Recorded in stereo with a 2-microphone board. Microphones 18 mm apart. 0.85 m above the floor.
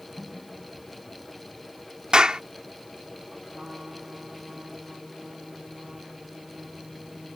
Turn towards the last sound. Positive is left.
turn(degrees=-75)  # may be behind; listen again after turning